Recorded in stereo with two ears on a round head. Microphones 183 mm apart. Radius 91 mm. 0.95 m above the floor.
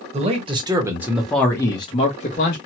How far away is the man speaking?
About 1.1 m.